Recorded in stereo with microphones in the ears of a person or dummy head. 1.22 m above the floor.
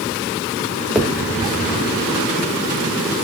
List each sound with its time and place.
0.9 s a finger snap: centre (ahead or behind), 2 m